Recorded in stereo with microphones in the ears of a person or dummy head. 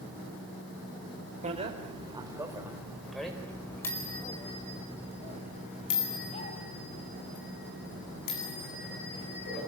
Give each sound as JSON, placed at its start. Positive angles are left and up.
{"t": 1.4, "sound": "a bicycle bell", "side_deg": -30, "distance_m": 3.5}